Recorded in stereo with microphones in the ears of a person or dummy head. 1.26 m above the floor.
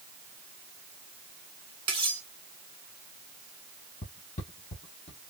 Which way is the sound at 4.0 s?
30° left (ahead or behind).